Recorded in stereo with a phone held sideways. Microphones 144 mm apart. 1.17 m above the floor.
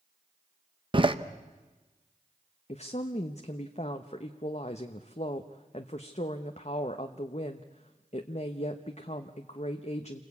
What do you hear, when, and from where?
0.9 s a door slam: 35° right (ahead or behind), 0.9 m
2.7 s a woman speaking: 50° left (ahead or behind), 0.9 m